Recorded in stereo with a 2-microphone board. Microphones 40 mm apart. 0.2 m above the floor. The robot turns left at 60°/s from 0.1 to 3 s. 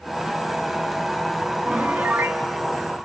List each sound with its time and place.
1.6 s a piano: 45° right, 0.7 m; by 2.4 s 90° right, 0.7 m